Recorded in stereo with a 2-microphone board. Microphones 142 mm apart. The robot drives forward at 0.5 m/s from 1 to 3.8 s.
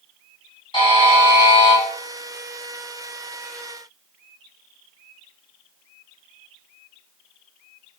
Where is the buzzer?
35° left (ahead or behind), 2.5 m.